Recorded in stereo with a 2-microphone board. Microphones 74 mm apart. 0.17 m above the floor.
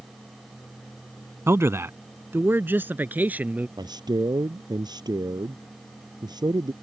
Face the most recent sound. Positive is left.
turn(degrees=-70)  # may be behind; listen again after turning